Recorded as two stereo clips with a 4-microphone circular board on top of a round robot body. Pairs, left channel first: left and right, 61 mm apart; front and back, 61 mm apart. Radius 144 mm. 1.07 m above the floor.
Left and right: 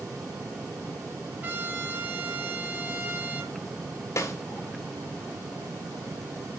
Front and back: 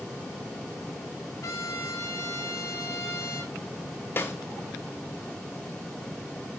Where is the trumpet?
30° right, 5.5 m.